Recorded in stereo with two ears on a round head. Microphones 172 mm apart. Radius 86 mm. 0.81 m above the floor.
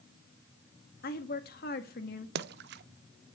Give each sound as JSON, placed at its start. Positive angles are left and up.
{"t": 1.0, "sound": "a woman speaking", "side_deg": 50, "distance_m": 1.6}
{"t": 2.4, "sound": "a splash", "side_deg": -55, "distance_m": 0.6}